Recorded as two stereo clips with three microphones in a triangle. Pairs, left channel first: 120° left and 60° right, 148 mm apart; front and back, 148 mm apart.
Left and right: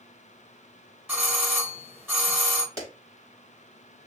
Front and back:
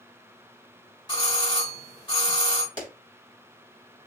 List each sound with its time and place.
1.1 s a doorbell: 5° right, 1.1 m
2.8 s a clap: 125° right, 2.5 m